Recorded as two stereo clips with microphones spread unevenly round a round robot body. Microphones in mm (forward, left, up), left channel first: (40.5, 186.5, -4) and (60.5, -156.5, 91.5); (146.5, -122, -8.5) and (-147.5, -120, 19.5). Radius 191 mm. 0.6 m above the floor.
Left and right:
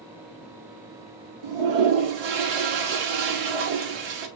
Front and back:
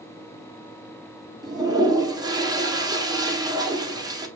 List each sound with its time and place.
1.4 s a toilet flushing: 100° right, 1.2 m